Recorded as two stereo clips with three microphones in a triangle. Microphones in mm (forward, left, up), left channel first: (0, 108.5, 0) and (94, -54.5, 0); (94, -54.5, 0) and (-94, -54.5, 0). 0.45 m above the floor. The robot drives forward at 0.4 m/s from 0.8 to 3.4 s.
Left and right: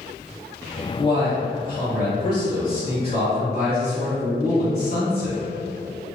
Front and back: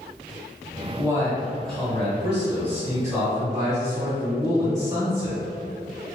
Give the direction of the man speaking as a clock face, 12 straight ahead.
9 o'clock.